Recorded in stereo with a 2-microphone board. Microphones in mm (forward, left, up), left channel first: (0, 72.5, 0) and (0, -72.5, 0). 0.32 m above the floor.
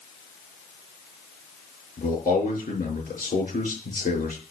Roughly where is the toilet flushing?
No toilet flushing in this recording.